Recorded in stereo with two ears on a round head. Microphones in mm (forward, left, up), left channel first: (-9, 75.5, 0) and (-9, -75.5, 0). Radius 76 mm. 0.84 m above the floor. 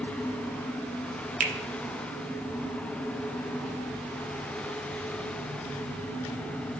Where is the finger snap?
50° right (ahead or behind), 0.7 m.